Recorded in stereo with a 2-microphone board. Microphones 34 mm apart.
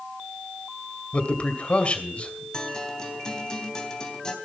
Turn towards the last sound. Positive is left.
turn(degrees=20)  # may be behind; listen again after turning